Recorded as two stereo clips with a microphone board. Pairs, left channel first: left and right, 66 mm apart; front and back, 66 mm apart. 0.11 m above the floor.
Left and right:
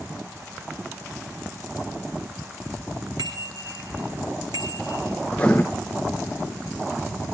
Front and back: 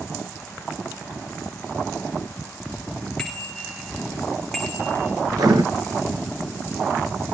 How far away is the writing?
About 3.5 m.